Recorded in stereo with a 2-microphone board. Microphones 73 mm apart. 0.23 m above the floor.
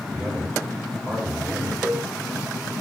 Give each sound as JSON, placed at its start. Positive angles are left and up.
{"t": 0.1, "sound": "a man speaking", "side_deg": -20, "distance_m": 1.8}
{"t": 1.8, "sound": "a cowbell", "side_deg": -10, "distance_m": 1.7}